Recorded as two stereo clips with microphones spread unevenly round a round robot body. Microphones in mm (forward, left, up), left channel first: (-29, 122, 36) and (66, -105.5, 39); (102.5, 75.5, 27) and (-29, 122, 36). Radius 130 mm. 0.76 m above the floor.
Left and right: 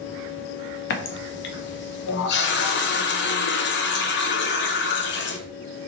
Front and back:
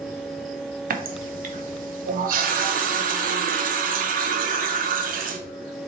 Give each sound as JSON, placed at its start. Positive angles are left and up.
{"t": 0.9, "sound": "a running tap", "azimuth_deg": 155, "distance_m": 0.5}